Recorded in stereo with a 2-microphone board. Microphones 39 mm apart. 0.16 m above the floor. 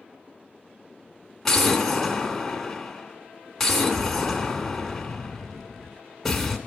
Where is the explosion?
10° left (ahead or behind), 0.7 m.